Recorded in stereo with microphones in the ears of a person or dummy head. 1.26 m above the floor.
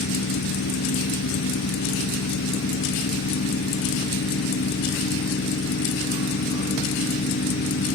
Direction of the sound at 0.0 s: 60° left (ahead or behind).